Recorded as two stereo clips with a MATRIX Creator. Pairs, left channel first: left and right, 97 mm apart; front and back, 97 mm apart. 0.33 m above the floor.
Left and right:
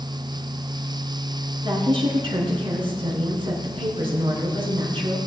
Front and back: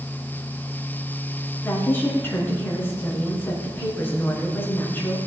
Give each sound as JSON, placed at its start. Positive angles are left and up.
{"t": 1.6, "sound": "a woman speaking", "azimuth_deg": -65, "distance_m": 4.5}